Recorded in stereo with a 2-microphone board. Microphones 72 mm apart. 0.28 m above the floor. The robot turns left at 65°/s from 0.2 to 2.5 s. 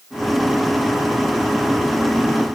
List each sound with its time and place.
Only background noise.